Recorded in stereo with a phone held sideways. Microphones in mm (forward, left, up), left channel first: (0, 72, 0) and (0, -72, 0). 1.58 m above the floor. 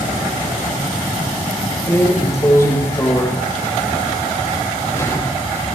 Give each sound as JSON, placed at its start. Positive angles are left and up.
{"t": 1.9, "sound": "a drawer", "side_deg": 20, "distance_m": 3.5}